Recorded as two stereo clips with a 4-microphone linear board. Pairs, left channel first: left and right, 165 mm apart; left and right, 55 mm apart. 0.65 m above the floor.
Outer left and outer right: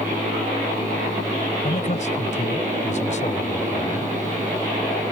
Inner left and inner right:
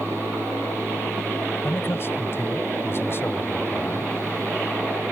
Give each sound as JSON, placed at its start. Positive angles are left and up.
{"t": 1.6, "sound": "a man speaking", "side_deg": 45}